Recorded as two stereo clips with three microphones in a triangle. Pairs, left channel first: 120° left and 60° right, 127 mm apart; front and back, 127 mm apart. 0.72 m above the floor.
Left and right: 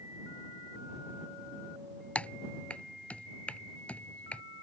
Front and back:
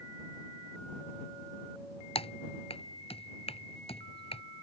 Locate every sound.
2.1 s typing on a keyboard: 40° left